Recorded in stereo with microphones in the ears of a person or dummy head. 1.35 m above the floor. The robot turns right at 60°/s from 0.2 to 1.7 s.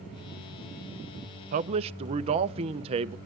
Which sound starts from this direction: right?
A man speaking, at 1.5 s.